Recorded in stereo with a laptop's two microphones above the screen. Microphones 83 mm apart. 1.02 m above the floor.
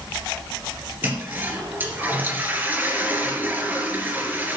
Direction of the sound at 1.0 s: 20° right (ahead or behind).